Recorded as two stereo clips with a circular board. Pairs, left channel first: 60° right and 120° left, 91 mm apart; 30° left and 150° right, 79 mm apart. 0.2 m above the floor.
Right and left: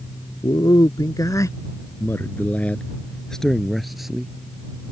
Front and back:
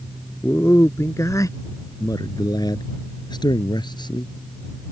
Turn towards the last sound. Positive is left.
turn(degrees=35)